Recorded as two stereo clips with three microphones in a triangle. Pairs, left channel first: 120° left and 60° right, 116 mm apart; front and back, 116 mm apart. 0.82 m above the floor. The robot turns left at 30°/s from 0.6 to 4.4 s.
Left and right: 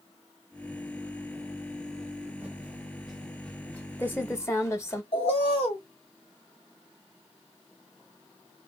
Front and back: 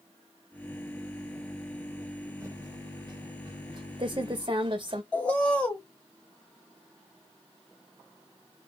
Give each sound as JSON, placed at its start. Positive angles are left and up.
{"t": 2.4, "sound": "typing on a keyboard", "azimuth_deg": -125, "distance_m": 0.7}
{"t": 5.1, "sound": "a bird", "azimuth_deg": 80, "distance_m": 1.0}